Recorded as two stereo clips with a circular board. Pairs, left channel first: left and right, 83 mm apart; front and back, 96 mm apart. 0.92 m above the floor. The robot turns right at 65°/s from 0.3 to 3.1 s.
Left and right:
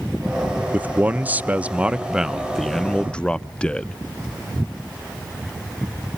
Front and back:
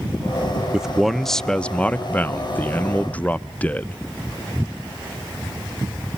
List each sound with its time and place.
0.7 s a man speaking: 115° right, 0.7 m; by 4.0 s 40° left, 0.7 m